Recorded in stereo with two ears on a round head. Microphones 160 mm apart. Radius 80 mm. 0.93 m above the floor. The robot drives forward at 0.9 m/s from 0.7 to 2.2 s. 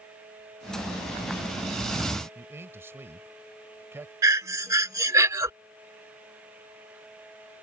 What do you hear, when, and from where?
2.4 s a man speaking: 15° right (ahead or behind)
4.2 s breathing: 20° right (ahead or behind)